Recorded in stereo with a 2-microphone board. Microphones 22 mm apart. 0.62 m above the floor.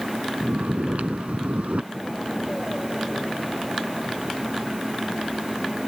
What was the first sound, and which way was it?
Snoring, 80° right.